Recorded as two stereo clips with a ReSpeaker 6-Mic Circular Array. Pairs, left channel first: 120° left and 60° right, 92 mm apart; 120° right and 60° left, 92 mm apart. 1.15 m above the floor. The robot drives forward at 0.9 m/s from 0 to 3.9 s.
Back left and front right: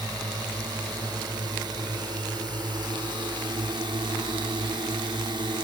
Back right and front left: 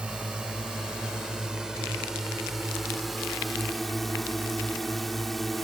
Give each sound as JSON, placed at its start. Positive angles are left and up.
{"t": 0.0, "sound": "a drone", "azimuth_deg": -20}